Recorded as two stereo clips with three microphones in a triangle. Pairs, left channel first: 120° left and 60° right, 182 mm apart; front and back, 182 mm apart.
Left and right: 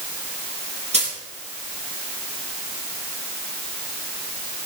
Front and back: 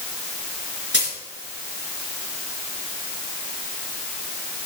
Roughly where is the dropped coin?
Ahead.